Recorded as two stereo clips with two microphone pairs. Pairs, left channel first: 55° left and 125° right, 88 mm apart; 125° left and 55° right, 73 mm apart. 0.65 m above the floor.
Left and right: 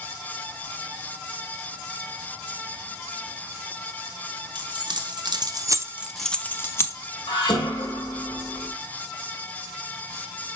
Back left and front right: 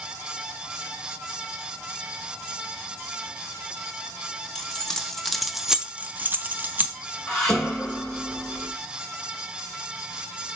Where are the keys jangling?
155° right, 1.3 m; by 7.0 s 5° left, 1.0 m.